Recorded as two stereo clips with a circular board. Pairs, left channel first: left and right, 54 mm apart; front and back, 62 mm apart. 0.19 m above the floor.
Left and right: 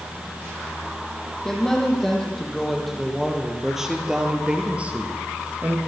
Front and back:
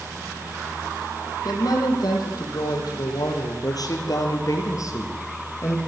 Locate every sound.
1.4 s a woman speaking: 10° left, 8 m; by 5.8 s 45° right, 4 m